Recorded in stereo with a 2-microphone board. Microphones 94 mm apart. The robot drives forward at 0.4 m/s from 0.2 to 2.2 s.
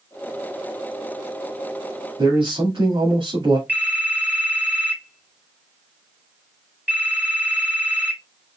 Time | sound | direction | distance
2.2 | a man speaking | 55° right (ahead or behind) | 2.0 m
3.7 | a phone ringing | 20° right (ahead or behind) | 3 m